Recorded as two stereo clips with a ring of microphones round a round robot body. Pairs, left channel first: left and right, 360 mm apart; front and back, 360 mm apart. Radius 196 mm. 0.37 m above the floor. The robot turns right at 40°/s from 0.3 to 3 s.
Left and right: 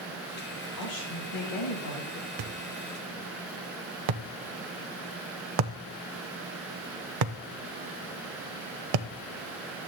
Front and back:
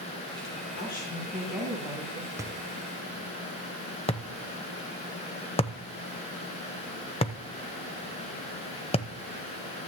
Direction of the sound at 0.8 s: 60° left.